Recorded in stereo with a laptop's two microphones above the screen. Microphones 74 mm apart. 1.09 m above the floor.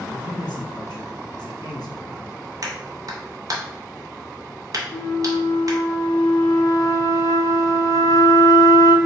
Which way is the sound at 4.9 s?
50° left (ahead or behind).